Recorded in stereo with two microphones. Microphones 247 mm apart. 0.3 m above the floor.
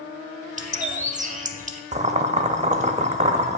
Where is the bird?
30° right (ahead or behind), 0.6 m.